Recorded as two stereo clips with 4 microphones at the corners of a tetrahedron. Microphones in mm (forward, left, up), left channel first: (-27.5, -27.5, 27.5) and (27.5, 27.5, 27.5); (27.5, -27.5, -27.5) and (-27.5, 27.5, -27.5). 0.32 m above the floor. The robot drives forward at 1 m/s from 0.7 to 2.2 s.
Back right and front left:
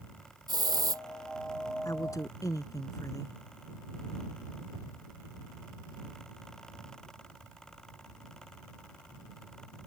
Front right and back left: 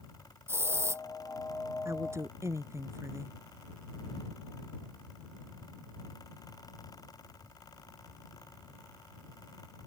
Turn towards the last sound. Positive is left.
turn(degrees=-175)